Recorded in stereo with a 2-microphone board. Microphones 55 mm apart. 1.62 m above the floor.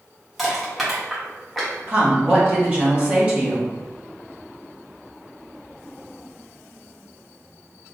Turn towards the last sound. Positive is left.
turn(degrees=-25)  # may be behind; listen again after turning